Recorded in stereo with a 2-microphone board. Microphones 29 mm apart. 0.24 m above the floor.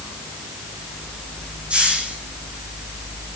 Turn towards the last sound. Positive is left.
turn(degrees=-40)  # may be behind; listen again after turning